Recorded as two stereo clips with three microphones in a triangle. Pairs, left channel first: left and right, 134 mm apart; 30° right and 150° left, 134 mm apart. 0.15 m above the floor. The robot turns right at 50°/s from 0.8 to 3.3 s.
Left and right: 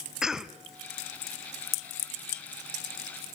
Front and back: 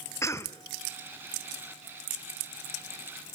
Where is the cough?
10° right, 1.3 m.